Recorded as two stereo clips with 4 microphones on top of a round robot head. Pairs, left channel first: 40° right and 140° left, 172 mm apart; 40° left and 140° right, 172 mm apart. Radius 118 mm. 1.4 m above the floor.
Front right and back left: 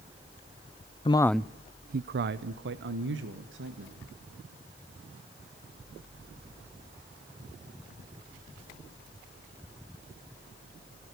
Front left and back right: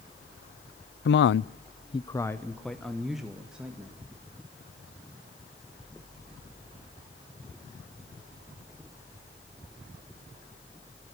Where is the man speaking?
20° left, 0.6 m; by 4.0 s 140° left, 2.5 m.